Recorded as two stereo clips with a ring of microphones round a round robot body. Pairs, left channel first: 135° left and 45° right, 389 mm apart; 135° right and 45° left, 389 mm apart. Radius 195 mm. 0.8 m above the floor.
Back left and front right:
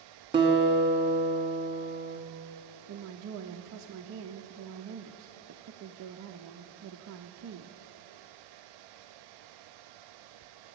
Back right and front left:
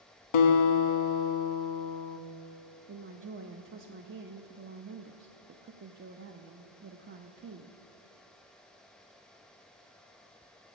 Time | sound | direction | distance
0.3 | a guitar | 125° right | 1.0 m
2.9 | a woman speaking | 5° right | 0.5 m